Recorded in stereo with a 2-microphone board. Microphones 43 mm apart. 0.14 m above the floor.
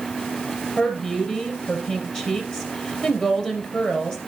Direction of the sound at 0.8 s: 20° left (ahead or behind).